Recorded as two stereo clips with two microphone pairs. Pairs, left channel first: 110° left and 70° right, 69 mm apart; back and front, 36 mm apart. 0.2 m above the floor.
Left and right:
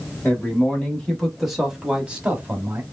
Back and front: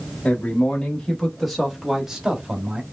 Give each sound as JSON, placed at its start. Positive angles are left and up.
{"t": 0.2, "sound": "a man speaking", "azimuth_deg": 170, "distance_m": 1.2}